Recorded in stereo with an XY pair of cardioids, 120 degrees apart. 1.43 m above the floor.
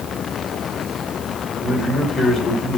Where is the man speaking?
45° left, 5.5 m.